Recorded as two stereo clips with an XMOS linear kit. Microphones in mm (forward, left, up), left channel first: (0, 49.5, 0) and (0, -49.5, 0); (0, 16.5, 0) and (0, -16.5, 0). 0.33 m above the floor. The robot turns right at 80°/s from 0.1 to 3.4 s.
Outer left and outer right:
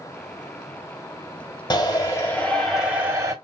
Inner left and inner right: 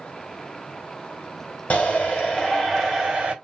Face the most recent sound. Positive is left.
turn(degrees=-125)